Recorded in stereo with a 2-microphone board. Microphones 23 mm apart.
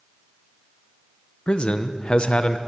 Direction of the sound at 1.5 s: 45° left (ahead or behind).